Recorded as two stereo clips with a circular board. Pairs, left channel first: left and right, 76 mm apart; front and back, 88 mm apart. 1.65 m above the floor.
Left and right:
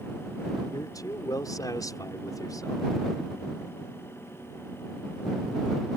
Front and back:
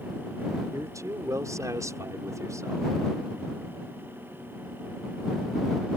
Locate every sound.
0.7 s a man speaking: 130° left; by 2.9 s 125° left